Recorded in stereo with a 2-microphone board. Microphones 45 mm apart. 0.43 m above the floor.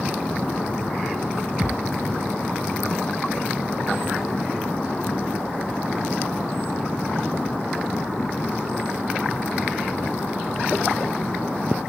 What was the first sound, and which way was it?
A thud, 15° right (ahead or behind).